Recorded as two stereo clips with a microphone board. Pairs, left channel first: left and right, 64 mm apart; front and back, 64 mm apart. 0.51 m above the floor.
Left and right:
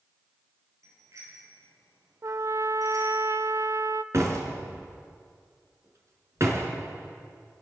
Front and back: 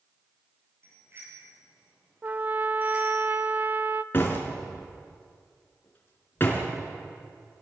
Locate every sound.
0.8 s a bicycle bell: 130° right, 7.5 m; by 3.2 s 110° right, 6.5 m
2.2 s a trumpet: 120° right, 0.5 m
4.1 s a door slam: 50° right, 4 m